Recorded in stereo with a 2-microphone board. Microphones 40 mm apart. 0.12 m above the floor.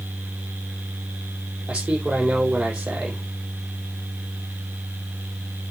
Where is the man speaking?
35° right (ahead or behind), 4.5 m.